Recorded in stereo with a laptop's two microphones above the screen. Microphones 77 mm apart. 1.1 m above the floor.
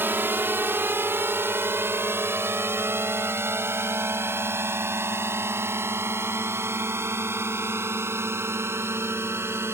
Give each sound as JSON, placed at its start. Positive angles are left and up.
{"t": 0.0, "sound": "a drone", "side_deg": -30}